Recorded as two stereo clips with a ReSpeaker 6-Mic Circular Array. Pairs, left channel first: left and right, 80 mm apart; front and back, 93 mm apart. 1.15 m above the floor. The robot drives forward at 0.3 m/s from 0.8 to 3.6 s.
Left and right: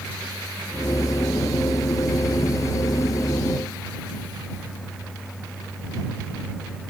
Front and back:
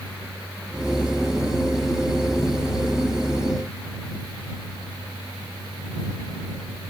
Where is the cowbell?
No cowbell in this recording.